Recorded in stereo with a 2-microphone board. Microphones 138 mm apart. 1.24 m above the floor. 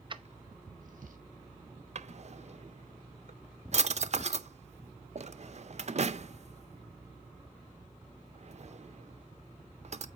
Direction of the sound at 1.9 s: 55° right (ahead or behind).